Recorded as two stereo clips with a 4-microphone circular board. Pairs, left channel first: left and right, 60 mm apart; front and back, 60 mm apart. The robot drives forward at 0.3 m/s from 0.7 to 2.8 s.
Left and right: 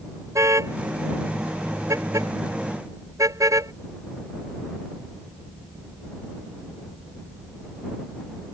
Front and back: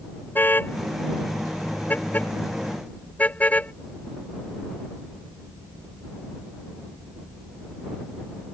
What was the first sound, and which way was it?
A car horn, 55° right.